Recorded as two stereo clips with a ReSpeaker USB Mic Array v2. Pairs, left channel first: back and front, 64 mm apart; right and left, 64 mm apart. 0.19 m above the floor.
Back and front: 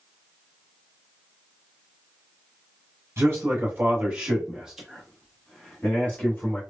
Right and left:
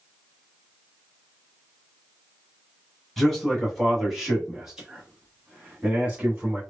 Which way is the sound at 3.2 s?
5° right.